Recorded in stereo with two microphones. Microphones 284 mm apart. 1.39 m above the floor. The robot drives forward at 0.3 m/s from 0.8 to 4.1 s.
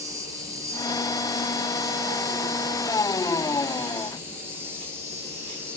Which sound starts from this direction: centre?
An insect, at 0.0 s.